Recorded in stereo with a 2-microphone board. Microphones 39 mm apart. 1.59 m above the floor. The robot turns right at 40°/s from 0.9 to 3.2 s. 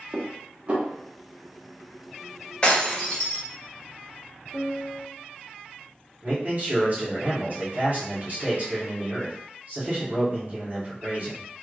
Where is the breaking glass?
25° left (ahead or behind), 1.4 m; by 3.4 s 15° left (ahead or behind), 1.4 m.